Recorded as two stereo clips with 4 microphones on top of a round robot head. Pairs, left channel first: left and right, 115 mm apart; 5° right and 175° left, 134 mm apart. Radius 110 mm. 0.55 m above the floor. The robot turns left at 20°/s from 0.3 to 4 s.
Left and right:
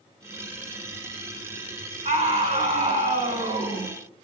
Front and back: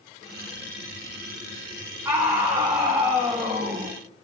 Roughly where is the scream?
Right.